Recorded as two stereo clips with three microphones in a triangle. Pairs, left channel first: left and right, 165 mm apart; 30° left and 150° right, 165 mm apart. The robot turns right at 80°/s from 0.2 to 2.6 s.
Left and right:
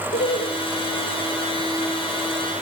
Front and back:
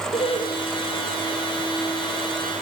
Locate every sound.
0.1 s laughter: 80° left, 2.5 m; by 0.5 s 105° left, 2.5 m